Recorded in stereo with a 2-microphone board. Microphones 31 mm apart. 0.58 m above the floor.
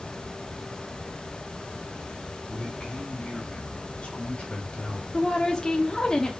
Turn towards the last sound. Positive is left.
turn(degrees=20)  # may be behind; listen again after turning